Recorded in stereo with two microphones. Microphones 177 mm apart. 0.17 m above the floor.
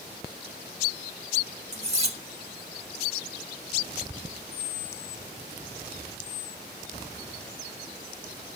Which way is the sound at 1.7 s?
40° right (ahead or behind).